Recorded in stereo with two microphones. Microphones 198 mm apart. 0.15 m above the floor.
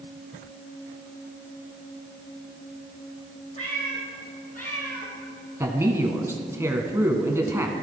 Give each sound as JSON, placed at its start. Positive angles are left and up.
{"t": 3.6, "sound": "a cat meowing", "side_deg": 35, "distance_m": 3.0}
{"t": 5.6, "sound": "a man speaking", "side_deg": -15, "distance_m": 1.1}